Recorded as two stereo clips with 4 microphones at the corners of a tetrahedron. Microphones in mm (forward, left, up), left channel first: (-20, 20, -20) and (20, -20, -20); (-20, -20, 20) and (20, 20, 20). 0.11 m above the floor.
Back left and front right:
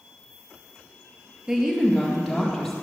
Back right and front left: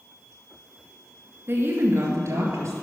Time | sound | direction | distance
1.5 | a woman speaking | 30° left | 2.0 m